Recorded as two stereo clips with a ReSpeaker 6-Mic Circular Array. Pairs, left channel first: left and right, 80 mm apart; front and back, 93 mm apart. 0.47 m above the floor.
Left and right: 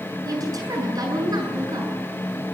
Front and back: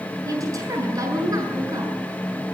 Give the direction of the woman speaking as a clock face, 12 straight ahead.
4 o'clock.